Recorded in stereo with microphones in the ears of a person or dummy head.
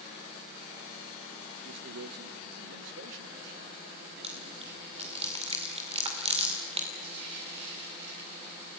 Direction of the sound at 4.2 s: 30° right (ahead or behind).